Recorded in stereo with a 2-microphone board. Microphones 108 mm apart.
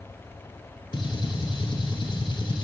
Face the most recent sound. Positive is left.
turn(degrees=50)  # may be behind; listen again after turning